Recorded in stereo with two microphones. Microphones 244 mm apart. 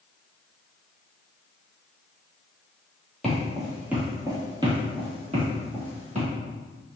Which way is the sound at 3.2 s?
Centre (ahead or behind).